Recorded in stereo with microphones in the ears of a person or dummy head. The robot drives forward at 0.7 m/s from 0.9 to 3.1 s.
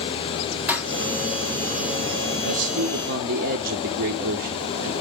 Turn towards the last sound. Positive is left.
turn(degrees=-60)  # may be behind; listen again after turning